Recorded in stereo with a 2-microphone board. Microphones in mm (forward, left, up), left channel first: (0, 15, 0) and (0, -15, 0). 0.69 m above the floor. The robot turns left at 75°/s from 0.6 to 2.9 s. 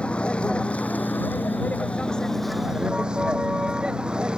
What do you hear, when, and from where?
0.0 s a vehicle: 145° left; by 4.4 s 25° right